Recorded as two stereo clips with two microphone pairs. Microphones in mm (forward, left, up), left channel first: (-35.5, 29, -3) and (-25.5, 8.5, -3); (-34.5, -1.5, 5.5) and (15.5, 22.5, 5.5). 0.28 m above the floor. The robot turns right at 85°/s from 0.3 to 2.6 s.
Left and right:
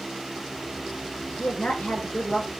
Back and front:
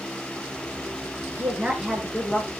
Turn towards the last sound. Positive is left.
turn(degrees=175)